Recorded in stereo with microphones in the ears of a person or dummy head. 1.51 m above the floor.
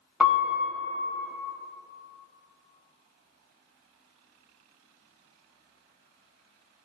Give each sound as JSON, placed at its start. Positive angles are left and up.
{"t": 0.2, "sound": "a piano", "side_deg": -5, "distance_m": 0.5}